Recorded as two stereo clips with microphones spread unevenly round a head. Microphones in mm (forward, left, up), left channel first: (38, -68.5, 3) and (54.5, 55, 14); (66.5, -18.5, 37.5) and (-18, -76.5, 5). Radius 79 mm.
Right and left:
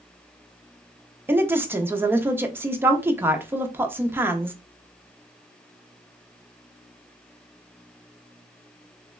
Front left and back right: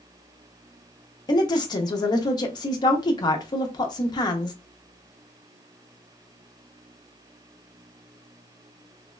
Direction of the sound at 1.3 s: 15° left.